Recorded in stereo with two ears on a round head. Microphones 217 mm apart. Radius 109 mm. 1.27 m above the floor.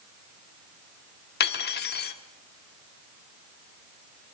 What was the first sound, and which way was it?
Cutlery clinking, 40° left (ahead or behind).